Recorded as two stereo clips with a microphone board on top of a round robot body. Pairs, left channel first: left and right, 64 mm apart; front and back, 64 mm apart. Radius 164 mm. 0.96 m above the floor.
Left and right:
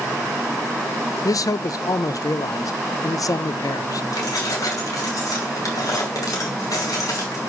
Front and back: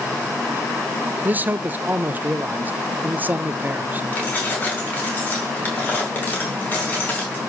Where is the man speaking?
115° left, 0.5 m.